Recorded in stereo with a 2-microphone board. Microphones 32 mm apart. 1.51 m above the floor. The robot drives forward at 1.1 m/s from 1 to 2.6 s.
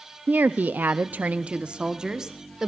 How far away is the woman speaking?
About 0.6 m.